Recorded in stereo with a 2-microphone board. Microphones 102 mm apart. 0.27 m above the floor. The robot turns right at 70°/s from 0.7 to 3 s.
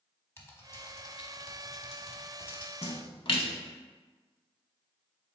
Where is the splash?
70° left (ahead or behind), 0.5 m; by 3.5 s 55° left (ahead or behind), 0.5 m.